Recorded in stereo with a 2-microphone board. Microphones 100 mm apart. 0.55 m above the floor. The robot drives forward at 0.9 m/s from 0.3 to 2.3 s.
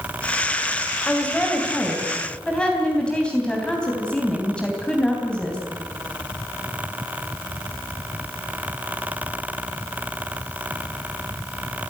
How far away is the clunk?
I don't hear a clunk.